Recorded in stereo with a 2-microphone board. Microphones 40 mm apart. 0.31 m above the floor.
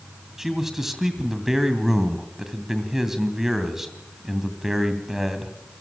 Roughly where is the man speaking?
Centre.